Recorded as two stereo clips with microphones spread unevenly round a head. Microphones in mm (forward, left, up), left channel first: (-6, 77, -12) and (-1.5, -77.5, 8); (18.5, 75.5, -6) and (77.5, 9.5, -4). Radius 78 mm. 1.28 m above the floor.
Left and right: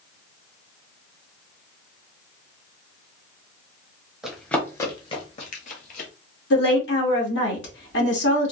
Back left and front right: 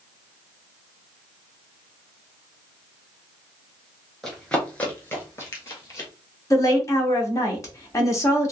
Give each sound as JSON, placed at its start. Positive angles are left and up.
{"t": 4.2, "sound": "running footsteps", "azimuth_deg": -140, "distance_m": 1.3}
{"t": 6.5, "sound": "a woman speaking", "azimuth_deg": 75, "distance_m": 1.6}